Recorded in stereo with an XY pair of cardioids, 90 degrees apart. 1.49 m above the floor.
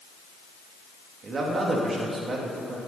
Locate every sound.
1.2 s a man speaking: 55° right, 3 m